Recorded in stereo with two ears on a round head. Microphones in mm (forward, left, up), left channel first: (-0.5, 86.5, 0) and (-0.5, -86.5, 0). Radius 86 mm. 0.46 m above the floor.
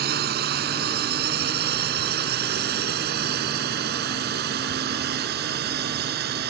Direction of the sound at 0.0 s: 55° right (ahead or behind).